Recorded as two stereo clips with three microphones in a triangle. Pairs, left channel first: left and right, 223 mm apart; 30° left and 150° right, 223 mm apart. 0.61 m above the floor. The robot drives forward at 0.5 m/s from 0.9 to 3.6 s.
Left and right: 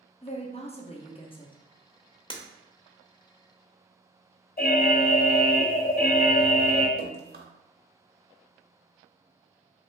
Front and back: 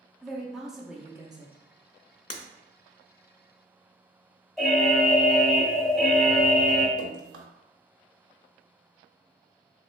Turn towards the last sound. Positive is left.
turn(degrees=-140)